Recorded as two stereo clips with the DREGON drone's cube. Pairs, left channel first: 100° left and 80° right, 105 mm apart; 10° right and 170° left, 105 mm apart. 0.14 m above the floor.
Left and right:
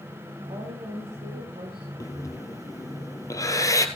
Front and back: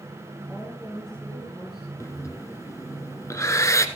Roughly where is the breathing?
Ahead left.